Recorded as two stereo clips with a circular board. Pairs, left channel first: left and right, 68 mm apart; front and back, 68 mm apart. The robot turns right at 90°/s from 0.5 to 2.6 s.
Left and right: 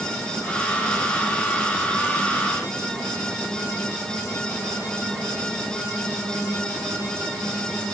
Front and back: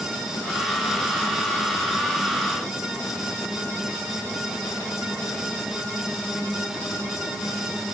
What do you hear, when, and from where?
Only background noise.